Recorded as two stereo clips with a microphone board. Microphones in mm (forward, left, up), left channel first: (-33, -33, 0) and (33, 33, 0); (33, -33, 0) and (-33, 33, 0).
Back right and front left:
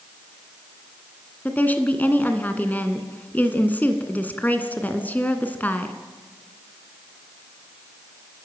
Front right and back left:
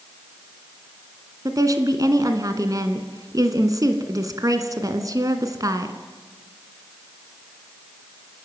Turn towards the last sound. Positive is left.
turn(degrees=160)